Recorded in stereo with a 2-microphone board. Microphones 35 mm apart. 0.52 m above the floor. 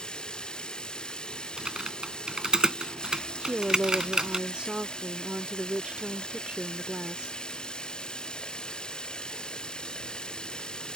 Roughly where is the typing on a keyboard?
Centre.